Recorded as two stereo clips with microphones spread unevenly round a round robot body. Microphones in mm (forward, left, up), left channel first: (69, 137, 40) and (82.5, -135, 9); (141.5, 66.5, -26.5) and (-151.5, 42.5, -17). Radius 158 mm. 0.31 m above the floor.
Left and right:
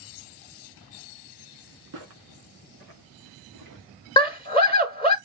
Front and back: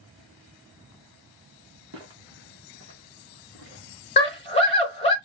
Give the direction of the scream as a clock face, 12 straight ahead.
11 o'clock.